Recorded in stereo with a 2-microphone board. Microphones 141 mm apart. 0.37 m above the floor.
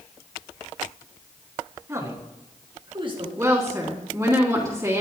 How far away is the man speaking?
About 3.5 m.